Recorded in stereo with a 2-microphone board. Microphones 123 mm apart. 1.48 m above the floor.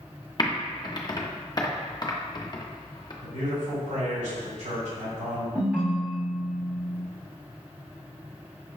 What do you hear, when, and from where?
0.4 s typing on a keyboard: 35° left (ahead or behind), 0.5 m
3.2 s a man speaking: 80° right, 2.0 m
5.5 s a ringtone: 10° right (ahead or behind), 1.6 m